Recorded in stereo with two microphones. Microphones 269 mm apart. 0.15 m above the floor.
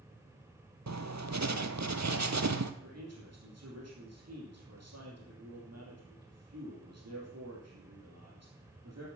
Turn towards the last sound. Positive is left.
turn(degrees=-70)  # may be behind; listen again after turning